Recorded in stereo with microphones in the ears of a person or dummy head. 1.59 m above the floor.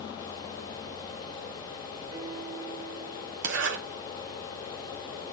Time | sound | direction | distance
2.1 | a piano | 25° right (ahead or behind) | 5.5 m
3.4 | a zipper | 60° right (ahead or behind) | 1.3 m